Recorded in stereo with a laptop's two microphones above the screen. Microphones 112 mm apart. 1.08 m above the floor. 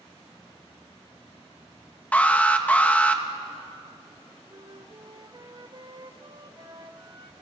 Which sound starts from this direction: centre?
An alarm, at 2.1 s.